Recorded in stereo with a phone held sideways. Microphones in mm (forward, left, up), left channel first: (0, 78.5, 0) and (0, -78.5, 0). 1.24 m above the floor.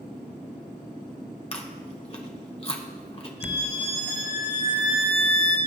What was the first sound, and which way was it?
Chewing, 40° left (ahead or behind).